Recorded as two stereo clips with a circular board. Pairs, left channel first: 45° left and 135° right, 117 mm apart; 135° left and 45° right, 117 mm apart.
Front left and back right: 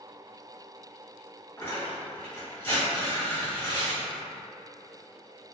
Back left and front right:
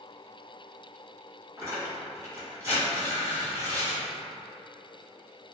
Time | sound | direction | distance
1.6 | tearing paper | 5° right | 1.5 m